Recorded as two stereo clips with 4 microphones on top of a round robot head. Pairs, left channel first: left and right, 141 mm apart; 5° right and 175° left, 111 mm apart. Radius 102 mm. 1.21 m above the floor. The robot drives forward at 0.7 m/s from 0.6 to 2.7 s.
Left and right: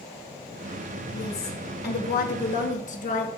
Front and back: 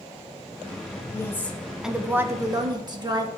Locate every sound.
1.1 s a woman speaking: 60° left, 1.1 m; by 3.3 s 125° left, 1.1 m